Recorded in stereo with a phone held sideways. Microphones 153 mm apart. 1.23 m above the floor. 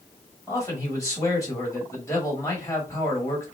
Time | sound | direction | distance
0.5 | a man speaking | 20° left (ahead or behind) | 1.9 m